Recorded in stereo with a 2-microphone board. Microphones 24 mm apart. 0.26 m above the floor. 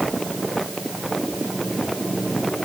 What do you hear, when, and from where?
Only background noise.